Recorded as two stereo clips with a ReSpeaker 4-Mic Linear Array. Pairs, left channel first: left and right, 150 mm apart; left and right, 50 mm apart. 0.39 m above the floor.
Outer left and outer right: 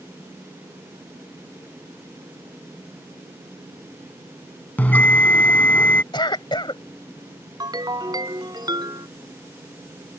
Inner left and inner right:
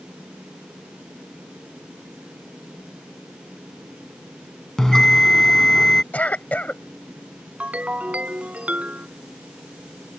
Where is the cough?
30° left (ahead or behind).